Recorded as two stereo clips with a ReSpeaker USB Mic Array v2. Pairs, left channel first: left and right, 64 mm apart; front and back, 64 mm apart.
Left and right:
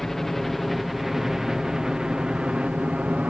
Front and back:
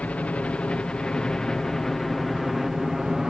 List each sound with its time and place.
0.0 s a helicopter: 10° left; by 3.3 s 110° right